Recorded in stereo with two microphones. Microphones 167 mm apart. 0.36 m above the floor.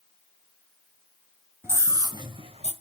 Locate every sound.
1.6 s a scream: 15° right (ahead or behind), 2.5 m; by 2.7 s 40° right (ahead or behind), 1.9 m